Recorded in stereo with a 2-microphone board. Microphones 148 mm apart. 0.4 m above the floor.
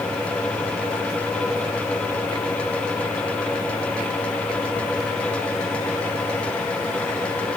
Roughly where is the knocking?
No knocking in this recording.